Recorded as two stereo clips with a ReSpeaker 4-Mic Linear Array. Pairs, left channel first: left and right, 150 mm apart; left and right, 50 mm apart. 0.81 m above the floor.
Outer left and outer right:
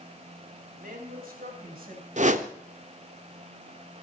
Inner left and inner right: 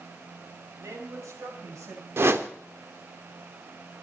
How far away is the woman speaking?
About 4 m.